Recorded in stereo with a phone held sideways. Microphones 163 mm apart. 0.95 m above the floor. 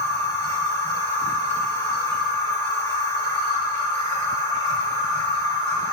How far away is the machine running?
About 1.0 m.